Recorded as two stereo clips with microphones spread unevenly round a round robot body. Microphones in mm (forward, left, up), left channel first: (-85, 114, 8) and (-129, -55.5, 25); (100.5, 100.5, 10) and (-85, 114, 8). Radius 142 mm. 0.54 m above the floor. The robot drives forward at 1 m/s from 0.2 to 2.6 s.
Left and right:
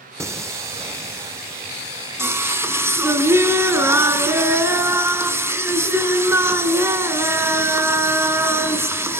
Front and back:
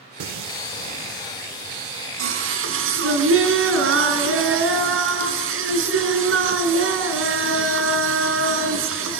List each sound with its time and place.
0.2 s singing: straight behind, 0.6 m